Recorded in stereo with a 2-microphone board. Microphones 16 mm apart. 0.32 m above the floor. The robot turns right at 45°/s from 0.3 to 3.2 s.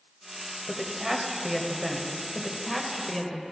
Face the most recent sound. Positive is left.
turn(degrees=5)  # may be behind; listen again after turning